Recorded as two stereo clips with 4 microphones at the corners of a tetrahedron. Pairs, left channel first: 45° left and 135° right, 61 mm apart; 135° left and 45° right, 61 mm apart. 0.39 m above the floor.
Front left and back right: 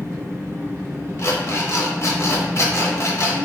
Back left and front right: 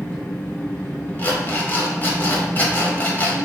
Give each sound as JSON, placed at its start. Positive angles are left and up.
{"t": 0.0, "sound": "an engine running", "azimuth_deg": -165, "distance_m": 1.4}
{"t": 1.2, "sound": "an alarm clock", "azimuth_deg": 85, "distance_m": 0.7}